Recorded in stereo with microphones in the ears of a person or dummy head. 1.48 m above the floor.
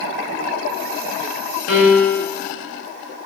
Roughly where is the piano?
Left.